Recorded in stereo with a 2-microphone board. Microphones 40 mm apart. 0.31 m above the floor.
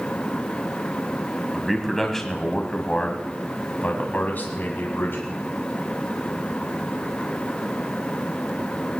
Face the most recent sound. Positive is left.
turn(degrees=60)  # may be behind; listen again after turning